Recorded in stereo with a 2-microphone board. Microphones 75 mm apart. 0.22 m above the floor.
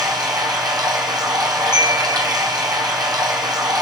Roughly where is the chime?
Left.